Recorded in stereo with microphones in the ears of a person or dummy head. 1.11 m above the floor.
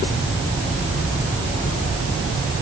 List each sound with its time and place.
Only background noise.